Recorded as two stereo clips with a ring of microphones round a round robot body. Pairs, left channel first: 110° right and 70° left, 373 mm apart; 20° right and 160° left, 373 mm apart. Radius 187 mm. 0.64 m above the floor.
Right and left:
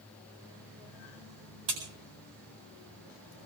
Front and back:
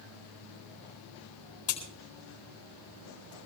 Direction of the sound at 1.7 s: 15° left.